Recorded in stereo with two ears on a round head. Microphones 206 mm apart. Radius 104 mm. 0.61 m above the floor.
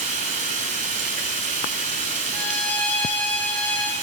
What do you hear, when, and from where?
0.0 s running water: 35° right (ahead or behind), 1.0 m
2.3 s a violin: 5° left (ahead or behind), 2 m